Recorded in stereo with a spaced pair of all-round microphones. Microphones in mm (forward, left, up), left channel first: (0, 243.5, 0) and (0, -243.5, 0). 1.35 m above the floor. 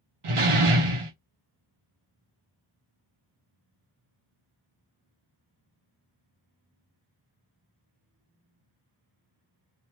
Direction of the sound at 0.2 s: 75° right (ahead or behind).